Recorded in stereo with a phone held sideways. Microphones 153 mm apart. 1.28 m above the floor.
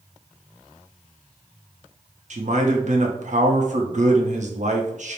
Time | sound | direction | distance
2.3 | a man speaking | 55° right (ahead or behind) | 0.7 m